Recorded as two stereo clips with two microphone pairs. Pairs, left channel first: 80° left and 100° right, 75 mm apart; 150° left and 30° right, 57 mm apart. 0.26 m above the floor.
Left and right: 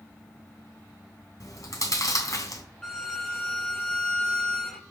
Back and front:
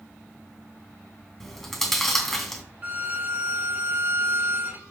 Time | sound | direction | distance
1.4 | chewing | 65° left | 2.5 m
2.8 | a violin | straight ahead | 1.5 m